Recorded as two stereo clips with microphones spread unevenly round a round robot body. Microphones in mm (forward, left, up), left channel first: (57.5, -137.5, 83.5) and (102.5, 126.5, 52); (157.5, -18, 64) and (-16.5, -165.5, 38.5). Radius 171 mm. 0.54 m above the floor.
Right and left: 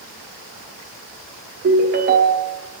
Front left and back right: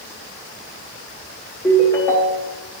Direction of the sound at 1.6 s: 125° left.